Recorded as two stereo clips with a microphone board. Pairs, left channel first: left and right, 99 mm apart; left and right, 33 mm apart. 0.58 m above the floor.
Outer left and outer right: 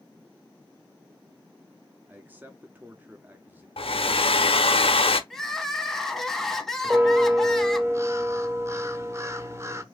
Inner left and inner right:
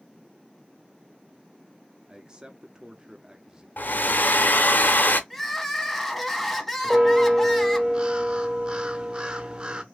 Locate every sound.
2.1 s a man speaking: 20° right (ahead or behind), 0.7 m
3.8 s a hair dryer: 70° left (ahead or behind), 0.7 m
5.3 s crying: 5° left (ahead or behind), 0.9 m
6.8 s a bell: 30° right (ahead or behind), 0.7 m